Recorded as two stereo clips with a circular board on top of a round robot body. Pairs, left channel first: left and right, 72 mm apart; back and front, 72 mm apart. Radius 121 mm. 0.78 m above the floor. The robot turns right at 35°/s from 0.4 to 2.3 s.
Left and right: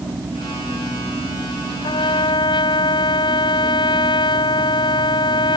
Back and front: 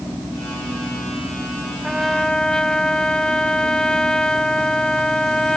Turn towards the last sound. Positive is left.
turn(degrees=100)